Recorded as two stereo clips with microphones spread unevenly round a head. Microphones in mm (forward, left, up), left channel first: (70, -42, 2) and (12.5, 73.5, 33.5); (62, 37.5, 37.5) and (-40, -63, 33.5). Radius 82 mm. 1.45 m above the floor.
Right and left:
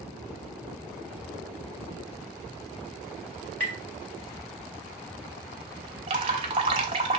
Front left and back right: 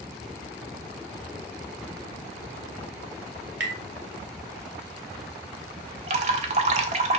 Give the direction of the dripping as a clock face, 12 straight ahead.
6 o'clock.